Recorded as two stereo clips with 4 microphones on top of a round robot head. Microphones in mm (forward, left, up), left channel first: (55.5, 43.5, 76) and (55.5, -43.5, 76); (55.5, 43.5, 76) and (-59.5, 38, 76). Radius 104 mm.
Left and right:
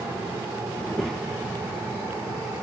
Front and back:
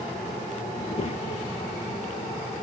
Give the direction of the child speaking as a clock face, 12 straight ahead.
11 o'clock.